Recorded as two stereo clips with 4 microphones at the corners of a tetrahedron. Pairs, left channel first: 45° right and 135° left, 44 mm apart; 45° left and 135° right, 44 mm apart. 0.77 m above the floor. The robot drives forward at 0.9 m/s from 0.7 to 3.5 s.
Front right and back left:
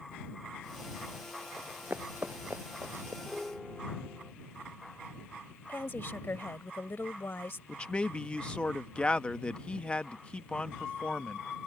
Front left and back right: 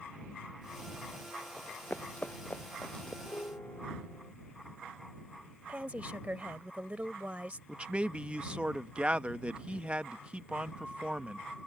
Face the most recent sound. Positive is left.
turn(degrees=-90)